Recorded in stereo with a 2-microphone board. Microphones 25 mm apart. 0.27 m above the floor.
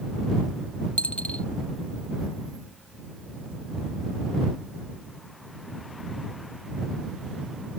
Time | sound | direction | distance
1.0 | a dropped coin | 65° left (ahead or behind) | ?